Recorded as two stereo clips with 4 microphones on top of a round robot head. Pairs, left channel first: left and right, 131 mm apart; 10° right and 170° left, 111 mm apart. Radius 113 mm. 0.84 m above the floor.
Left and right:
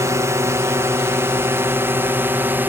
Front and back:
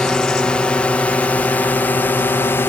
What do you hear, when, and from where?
0.0 s a drone: 80° right; by 2.7 s 40° right